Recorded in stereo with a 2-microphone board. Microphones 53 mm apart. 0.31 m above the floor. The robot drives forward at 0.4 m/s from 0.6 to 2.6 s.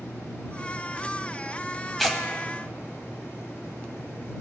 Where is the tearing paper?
5° left (ahead or behind), 1.4 m.